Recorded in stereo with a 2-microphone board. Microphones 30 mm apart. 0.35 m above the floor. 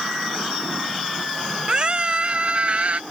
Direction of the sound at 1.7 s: 35° right (ahead or behind).